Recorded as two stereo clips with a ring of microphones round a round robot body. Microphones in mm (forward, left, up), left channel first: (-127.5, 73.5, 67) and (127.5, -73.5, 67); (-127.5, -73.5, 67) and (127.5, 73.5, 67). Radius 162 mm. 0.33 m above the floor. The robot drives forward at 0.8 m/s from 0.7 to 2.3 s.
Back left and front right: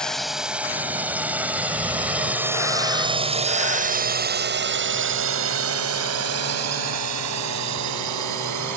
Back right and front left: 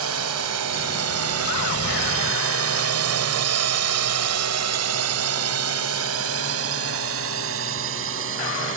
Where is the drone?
65° left; by 8.8 s 15° right.